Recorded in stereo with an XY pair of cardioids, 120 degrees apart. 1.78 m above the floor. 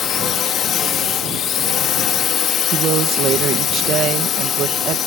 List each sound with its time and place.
0.0 s a drone: 55° left
2.7 s a woman speaking: 65° right